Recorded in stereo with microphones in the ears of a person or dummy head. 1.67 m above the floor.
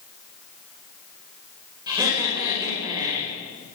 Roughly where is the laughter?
Centre.